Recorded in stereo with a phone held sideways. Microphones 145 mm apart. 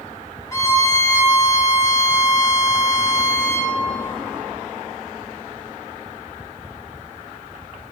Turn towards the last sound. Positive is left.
turn(degrees=20)  # may be behind; listen again after turning